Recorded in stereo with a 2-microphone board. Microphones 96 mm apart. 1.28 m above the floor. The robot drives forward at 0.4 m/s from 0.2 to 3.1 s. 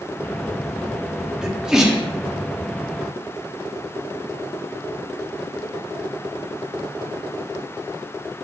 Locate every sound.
1.4 s a sneeze: 5° right (ahead or behind), 0.6 m